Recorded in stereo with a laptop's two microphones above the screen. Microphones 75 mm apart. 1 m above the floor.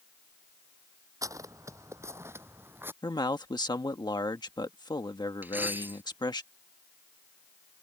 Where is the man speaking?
70° left (ahead or behind).